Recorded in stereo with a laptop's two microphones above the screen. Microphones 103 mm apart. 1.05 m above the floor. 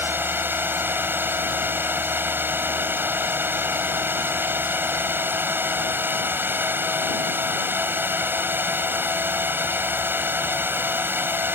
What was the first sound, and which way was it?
A drone, 20° right (ahead or behind).